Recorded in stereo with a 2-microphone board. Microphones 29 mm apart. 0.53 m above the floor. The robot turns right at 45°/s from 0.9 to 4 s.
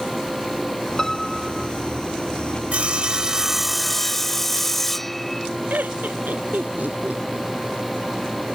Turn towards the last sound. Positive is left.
turn(degrees=-85)